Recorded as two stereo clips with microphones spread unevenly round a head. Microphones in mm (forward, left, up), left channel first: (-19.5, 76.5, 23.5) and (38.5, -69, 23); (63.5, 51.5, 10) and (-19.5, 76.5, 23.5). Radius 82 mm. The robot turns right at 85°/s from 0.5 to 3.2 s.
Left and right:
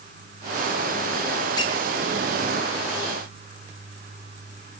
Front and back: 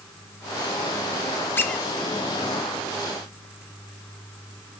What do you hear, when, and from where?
1.6 s a squeak: 50° left, 0.6 m; by 1.9 s 75° left, 0.6 m